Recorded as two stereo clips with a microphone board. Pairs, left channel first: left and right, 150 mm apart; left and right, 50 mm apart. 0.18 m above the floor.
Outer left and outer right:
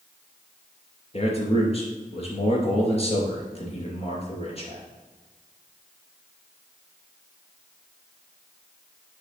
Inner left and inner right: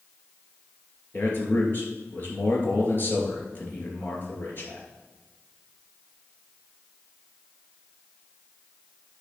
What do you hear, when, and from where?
1.1 s a man speaking: 45° left (ahead or behind), 3 m